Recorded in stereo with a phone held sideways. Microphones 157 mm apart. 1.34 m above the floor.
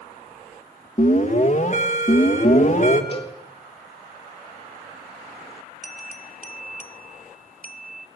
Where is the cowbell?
35° left (ahead or behind), 1.7 m.